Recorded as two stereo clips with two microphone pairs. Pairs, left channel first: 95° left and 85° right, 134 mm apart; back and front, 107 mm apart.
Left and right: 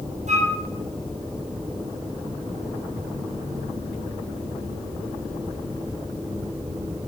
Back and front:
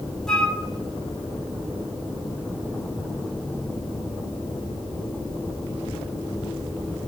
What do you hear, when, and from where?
0.3 s a flute: 100° right, 1.8 m